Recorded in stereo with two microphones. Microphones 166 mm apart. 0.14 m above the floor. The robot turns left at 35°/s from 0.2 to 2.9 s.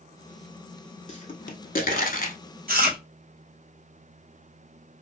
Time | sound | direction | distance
1.1 | a pop | 45° left (ahead or behind) | 0.6 m
2.7 | chewing | 70° right (ahead or behind) | 1.0 m